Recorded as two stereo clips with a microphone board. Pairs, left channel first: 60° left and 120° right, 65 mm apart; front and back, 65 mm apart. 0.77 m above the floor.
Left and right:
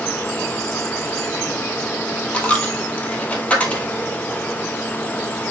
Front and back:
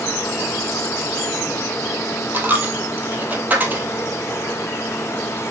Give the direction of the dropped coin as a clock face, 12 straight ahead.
8 o'clock.